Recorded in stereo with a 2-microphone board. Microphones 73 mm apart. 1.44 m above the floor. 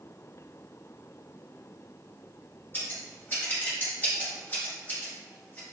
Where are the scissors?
25° left (ahead or behind), 1.6 m.